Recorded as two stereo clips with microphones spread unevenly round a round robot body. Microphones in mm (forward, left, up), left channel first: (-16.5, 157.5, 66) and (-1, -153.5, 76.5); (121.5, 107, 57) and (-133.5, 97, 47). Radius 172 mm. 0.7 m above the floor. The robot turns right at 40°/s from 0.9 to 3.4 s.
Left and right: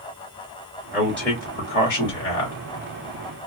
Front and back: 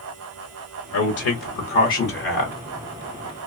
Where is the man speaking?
Straight ahead, 1.3 m; by 2.6 s 65° left, 1.3 m.